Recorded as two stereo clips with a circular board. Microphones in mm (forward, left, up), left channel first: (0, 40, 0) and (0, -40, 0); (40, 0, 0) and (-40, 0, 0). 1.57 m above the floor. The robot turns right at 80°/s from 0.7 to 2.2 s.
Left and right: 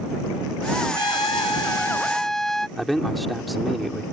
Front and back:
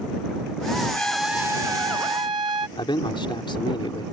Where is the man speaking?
Straight ahead.